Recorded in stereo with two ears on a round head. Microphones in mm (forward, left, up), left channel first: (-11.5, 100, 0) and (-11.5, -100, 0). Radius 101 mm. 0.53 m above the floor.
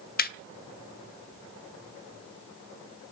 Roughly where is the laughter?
Left.